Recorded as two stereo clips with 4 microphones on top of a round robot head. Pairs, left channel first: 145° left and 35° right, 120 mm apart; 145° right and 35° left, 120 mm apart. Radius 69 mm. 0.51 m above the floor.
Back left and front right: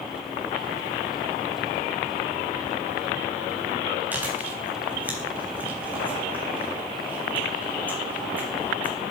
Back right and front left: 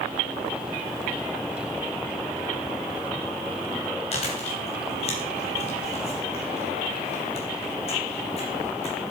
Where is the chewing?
110° right, 3.5 m.